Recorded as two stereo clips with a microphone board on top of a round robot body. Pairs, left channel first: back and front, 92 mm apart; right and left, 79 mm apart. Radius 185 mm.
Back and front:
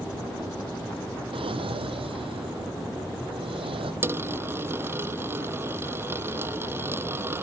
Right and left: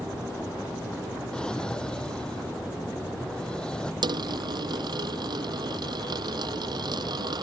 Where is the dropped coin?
65° left.